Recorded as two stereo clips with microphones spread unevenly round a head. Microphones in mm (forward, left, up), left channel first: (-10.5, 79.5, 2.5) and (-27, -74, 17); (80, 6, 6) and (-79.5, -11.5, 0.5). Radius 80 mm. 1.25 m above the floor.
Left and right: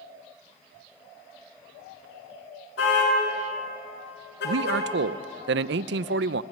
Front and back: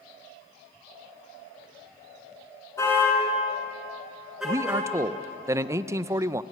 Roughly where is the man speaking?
Right.